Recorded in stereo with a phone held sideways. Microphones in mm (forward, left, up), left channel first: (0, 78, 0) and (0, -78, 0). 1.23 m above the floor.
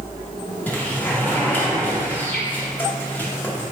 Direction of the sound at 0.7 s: 10° left (ahead or behind).